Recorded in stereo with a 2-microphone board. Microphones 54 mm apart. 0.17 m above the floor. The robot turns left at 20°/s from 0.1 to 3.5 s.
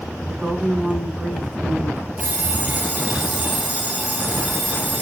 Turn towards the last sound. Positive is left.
turn(degrees=0)  # may be behind; listen again after turning